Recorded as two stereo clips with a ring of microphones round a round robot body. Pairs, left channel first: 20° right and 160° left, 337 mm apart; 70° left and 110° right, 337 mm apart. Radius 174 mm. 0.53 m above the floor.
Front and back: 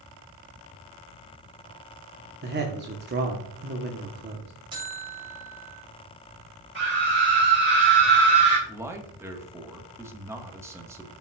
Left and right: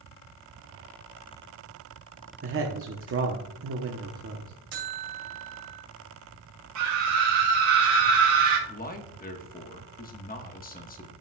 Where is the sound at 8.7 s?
85° left, 1.1 m.